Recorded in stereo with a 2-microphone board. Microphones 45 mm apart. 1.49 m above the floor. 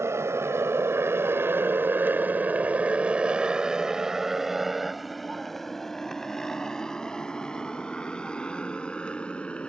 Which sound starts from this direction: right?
A motorcycle, at 0.0 s.